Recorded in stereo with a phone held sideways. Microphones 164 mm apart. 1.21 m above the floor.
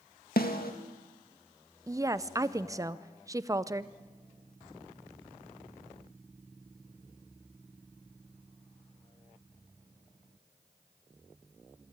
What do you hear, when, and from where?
0.4 s a snare drum: 75° left (ahead or behind), 1.7 m
1.9 s a woman speaking: 20° right (ahead or behind), 0.6 m